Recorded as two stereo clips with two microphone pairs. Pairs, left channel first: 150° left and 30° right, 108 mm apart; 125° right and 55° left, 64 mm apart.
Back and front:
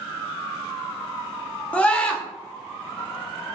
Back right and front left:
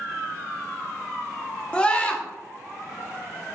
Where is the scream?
155° right, 0.6 m.